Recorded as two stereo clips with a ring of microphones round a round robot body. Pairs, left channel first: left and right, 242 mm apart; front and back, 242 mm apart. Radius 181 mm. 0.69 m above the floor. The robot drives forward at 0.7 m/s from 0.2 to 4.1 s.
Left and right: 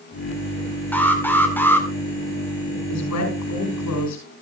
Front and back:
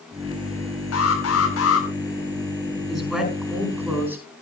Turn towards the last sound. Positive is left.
turn(degrees=95)